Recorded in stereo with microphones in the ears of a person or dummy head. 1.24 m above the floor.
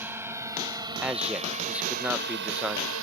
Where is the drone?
15° right (ahead or behind); by 3.0 s 80° right.